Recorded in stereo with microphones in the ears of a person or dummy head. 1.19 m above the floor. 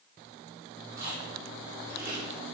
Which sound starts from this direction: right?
Chewing, at 1.0 s.